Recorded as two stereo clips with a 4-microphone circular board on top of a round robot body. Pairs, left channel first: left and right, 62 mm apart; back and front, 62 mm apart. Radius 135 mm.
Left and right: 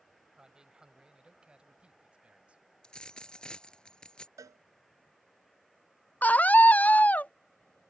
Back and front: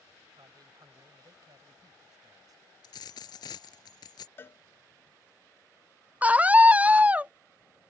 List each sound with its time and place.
0.3 s a man speaking: 10° right; by 2.6 s 20° right
2.8 s a dropped coin: 170° left
4.4 s a cowbell: 125° right
6.2 s a scream: 50° left